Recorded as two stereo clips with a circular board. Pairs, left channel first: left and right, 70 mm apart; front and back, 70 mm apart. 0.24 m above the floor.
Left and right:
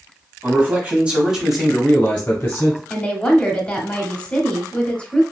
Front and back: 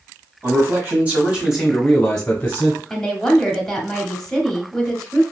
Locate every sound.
0.4 s a man speaking: 140° right, 1.5 m; by 2.8 s 50° left, 1.4 m
2.9 s a woman speaking: 70° left, 0.9 m